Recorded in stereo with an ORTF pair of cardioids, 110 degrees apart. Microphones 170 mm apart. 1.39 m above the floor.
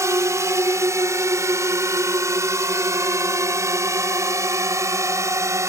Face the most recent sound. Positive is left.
turn(degrees=-20)